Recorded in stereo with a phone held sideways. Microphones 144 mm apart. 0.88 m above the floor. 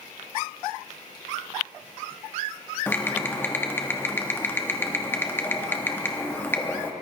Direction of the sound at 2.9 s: 15° left (ahead or behind).